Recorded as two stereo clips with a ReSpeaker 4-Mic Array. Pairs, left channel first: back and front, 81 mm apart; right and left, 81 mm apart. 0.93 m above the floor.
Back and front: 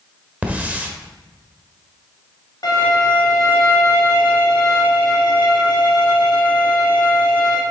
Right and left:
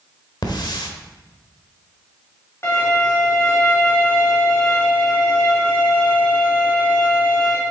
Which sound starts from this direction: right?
A hiss, at 0.4 s.